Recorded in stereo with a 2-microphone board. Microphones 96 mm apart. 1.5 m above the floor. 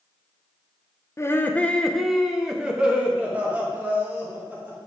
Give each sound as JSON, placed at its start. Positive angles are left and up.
{"t": 1.2, "sound": "laughter", "side_deg": 30, "distance_m": 0.6}